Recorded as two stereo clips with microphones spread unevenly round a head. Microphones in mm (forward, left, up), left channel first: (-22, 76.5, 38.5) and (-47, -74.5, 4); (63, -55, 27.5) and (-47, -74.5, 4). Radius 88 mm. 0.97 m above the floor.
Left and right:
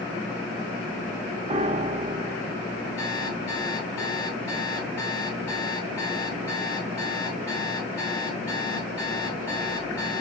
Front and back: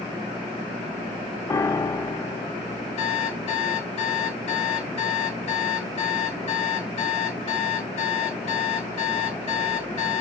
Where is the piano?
55° right, 0.6 m.